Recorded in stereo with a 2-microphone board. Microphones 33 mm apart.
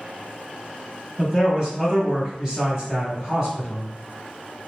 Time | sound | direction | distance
1.2 | a man speaking | 10° right (ahead or behind) | 1.1 m